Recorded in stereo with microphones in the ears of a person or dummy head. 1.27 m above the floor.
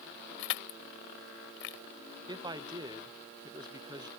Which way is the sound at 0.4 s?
85° left.